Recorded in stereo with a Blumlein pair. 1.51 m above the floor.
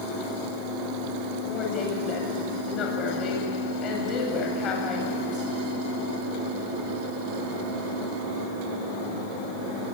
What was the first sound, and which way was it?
A woman speaking, 30° left.